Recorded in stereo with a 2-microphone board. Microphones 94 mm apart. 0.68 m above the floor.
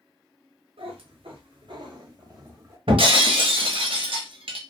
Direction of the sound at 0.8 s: 85° right.